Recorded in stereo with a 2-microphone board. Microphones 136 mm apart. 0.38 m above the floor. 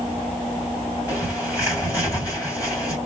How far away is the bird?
About 3 m.